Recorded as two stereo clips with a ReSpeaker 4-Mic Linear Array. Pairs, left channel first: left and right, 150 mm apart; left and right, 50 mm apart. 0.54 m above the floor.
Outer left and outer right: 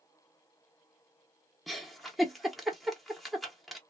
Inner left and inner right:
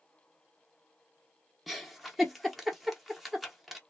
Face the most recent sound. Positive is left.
turn(degrees=0)  # may be behind; listen again after turning